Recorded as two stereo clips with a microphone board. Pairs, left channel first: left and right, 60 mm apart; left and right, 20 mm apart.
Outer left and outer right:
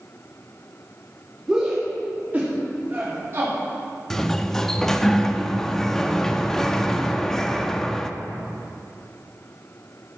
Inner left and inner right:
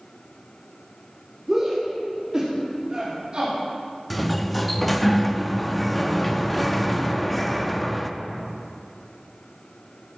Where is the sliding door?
5° left (ahead or behind), 0.6 m.